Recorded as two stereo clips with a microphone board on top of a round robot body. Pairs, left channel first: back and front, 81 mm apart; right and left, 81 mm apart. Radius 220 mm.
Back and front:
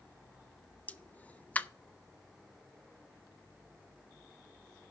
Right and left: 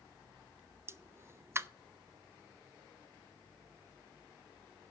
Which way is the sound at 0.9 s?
120° left.